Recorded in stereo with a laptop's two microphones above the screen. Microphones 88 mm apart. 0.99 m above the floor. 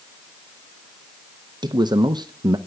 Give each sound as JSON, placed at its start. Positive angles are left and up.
{"t": 1.6, "sound": "a man speaking", "side_deg": -50, "distance_m": 0.6}